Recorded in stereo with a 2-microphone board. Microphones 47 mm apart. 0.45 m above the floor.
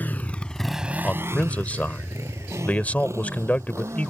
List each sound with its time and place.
0.0 s a motorcycle: 40° left (ahead or behind); by 4.1 s 80° right
1.0 s a man speaking: 30° left (ahead or behind)